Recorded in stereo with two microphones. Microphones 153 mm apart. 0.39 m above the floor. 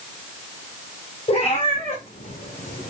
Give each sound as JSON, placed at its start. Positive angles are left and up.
{"t": 1.3, "sound": "a cat meowing", "side_deg": 40, "distance_m": 4.0}